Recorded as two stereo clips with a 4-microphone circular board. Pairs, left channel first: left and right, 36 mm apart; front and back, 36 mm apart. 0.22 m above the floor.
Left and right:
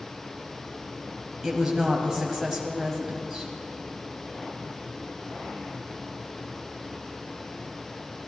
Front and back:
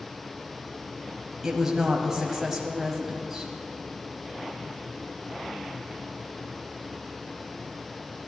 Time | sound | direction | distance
1.4 | a woman speaking | 135° right | 1.2 m